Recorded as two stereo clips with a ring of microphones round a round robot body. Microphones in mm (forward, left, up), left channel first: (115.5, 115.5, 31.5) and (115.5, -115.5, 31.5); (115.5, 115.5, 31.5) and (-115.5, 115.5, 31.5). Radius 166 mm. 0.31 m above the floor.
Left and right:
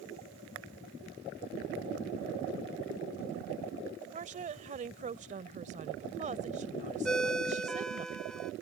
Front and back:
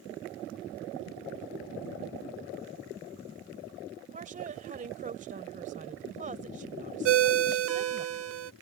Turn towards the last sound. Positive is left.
turn(degrees=175)